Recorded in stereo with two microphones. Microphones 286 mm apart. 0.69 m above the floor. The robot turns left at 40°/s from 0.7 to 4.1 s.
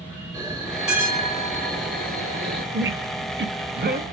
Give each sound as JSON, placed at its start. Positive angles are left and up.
{"t": 0.3, "sound": "a bell", "azimuth_deg": 5, "distance_m": 1.7}
{"t": 2.7, "sound": "a squeak", "side_deg": -40, "distance_m": 0.5}